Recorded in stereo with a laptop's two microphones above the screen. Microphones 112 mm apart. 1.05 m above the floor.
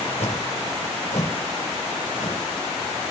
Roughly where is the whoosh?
Left.